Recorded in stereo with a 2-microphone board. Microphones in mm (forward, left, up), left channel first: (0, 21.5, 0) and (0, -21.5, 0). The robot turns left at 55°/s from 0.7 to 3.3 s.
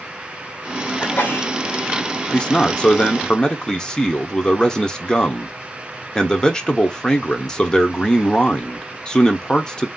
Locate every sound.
1.0 s a sneeze: 25° left (ahead or behind), 1.1 m; by 1.5 s 45° left (ahead or behind), 1.1 m
2.3 s a man speaking: 20° left (ahead or behind), 0.8 m; by 9.9 s 15° left (ahead or behind), 0.8 m